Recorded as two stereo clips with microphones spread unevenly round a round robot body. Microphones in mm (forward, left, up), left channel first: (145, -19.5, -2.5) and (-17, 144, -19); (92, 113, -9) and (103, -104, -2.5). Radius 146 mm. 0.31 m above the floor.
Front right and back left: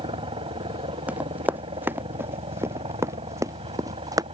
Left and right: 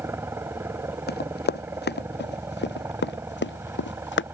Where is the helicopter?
165° right.